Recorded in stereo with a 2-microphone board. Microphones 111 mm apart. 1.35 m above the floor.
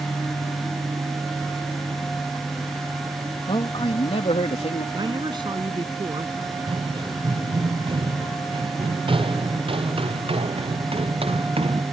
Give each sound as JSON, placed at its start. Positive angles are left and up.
{"t": 3.5, "sound": "a man speaking", "side_deg": 50}
{"t": 4.9, "sound": "a man speaking", "side_deg": -45}
{"t": 6.4, "sound": "running footsteps", "side_deg": -45}